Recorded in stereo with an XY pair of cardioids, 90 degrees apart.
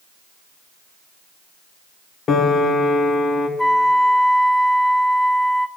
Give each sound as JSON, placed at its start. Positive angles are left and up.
{"t": 2.3, "sound": "a piano", "azimuth_deg": 60, "distance_m": 0.9}
{"t": 3.6, "sound": "a flute", "azimuth_deg": 10, "distance_m": 0.5}